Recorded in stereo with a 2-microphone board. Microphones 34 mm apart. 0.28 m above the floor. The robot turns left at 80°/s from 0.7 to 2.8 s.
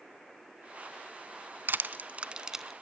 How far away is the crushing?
About 0.8 m.